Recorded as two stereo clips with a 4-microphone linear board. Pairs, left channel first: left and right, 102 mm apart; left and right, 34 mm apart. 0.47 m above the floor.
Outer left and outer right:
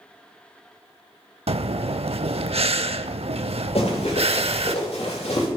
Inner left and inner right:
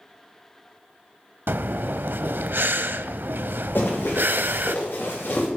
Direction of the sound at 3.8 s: 85° left.